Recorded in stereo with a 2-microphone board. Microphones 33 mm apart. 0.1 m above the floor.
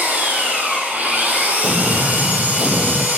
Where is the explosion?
40° right (ahead or behind), 0.5 m.